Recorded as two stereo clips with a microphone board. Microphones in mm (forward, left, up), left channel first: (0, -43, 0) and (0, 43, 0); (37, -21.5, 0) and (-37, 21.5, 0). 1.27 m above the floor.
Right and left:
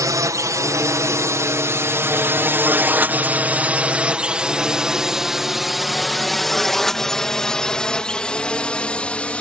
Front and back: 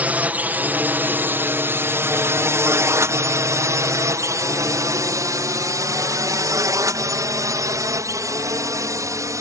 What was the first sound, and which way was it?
A drone, 85° left.